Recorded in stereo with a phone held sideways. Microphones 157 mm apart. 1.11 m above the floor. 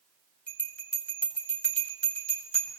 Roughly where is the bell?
Centre.